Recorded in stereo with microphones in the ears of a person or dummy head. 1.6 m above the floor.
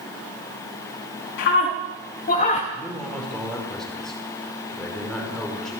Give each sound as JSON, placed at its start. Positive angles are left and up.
{"t": 1.4, "sound": "a scream", "side_deg": 55, "distance_m": 4.0}
{"t": 2.7, "sound": "a man speaking", "side_deg": 0, "distance_m": 5.5}